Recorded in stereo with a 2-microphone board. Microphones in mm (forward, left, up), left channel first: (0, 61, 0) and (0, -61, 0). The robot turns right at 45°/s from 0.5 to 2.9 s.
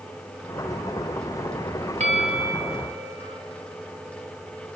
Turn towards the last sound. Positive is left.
turn(degrees=-65)